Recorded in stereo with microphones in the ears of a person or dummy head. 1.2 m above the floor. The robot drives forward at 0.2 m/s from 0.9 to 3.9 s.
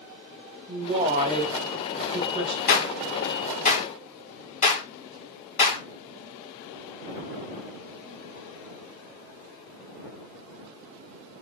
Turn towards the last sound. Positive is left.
turn(degrees=45)  # may be behind; listen again after turning